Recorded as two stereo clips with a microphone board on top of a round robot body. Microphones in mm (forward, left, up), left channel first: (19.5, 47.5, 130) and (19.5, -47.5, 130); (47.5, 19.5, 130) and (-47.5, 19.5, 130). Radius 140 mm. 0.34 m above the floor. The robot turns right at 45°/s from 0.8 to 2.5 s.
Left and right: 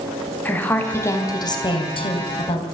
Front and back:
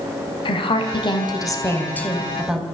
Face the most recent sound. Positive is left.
turn(degrees=95)